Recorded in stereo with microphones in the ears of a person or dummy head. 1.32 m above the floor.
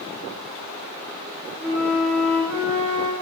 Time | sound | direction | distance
1.6 | a flute | 5° left (ahead or behind) | 1.7 m